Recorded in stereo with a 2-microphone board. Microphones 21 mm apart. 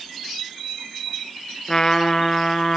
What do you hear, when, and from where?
1.7 s a trumpet: 30° left (ahead or behind), 1.4 m